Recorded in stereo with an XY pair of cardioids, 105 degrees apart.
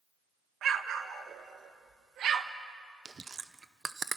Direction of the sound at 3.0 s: 30° right.